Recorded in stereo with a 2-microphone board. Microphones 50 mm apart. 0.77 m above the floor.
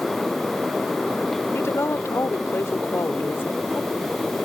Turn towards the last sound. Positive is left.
turn(degrees=30)  # may be behind; listen again after turning